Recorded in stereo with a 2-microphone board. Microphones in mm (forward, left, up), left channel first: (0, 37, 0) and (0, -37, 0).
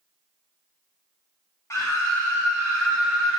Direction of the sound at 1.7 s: 40° left (ahead or behind).